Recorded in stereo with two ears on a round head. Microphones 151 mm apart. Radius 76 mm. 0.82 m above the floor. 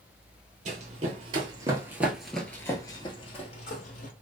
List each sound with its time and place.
0.7 s running footsteps: 45° right (ahead or behind), 1.3 m; by 4.1 s 50° left (ahead or behind), 1.4 m